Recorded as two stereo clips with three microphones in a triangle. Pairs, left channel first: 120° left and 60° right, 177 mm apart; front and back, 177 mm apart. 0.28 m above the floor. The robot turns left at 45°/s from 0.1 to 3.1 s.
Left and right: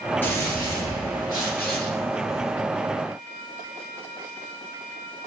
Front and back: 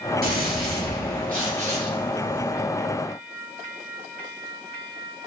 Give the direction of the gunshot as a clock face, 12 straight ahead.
5 o'clock.